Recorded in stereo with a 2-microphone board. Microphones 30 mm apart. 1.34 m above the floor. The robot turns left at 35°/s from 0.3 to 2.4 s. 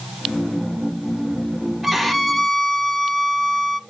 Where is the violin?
5° right (ahead or behind), 0.6 m; by 3.8 s 15° left (ahead or behind), 0.6 m.